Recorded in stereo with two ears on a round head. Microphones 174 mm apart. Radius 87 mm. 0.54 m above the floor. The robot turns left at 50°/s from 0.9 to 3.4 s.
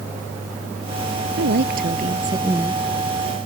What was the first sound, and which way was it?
A woman speaking, 110° right.